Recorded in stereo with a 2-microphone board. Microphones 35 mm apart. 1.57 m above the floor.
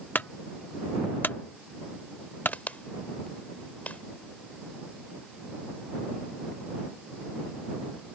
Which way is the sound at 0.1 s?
60° left (ahead or behind).